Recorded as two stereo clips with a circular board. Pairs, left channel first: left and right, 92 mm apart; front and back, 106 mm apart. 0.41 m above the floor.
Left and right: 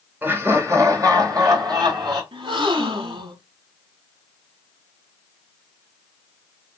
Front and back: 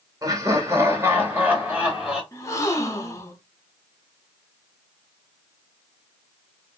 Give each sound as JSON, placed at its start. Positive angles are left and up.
{"t": 0.2, "sound": "laughter", "azimuth_deg": -145, "distance_m": 1.6}
{"t": 2.3, "sound": "a gasp", "azimuth_deg": -60, "distance_m": 0.8}